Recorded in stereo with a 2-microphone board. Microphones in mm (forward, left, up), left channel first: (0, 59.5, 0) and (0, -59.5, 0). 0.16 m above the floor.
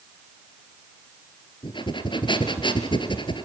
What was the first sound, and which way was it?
Breathing, 40° left (ahead or behind).